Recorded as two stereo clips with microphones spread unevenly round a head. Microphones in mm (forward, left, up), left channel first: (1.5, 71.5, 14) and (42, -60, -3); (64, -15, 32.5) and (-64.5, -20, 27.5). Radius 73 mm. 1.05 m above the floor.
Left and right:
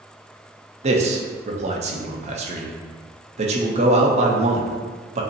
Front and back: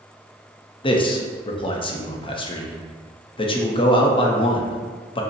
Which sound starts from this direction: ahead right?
A man speaking, at 0.8 s.